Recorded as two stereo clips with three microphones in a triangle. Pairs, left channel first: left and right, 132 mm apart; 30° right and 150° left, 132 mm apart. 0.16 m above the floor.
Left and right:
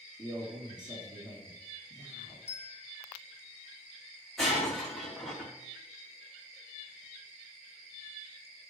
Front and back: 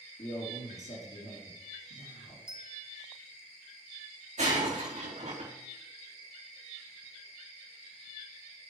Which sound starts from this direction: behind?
Breaking glass, at 4.4 s.